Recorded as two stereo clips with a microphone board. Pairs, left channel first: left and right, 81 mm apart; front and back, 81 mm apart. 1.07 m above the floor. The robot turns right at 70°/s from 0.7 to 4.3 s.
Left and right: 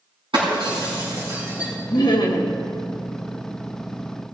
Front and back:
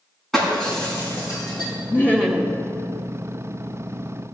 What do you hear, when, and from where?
0.3 s breaking glass: 85° right, 6 m; by 1.7 s 15° right, 6 m
1.9 s laughter: 55° left, 1.6 m; by 2.6 s 100° left, 1.6 m